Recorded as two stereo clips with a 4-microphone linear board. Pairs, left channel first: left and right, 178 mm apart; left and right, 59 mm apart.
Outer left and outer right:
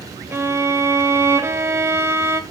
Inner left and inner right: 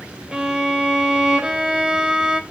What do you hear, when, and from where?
0.3 s a violin: 15° right (ahead or behind), 1.7 m